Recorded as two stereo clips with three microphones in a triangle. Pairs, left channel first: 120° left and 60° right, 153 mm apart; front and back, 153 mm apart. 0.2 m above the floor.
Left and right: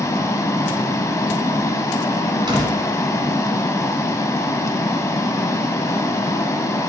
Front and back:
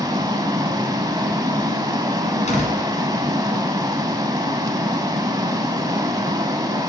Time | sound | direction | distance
0.0 | running water | 160° left | 0.7 m
2.5 | a door slam | 10° right | 1.5 m